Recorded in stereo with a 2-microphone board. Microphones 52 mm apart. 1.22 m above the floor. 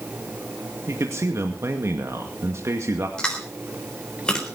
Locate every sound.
0.9 s a man speaking: 70° right (ahead or behind), 2 m
3.2 s chewing: 15° left (ahead or behind), 4 m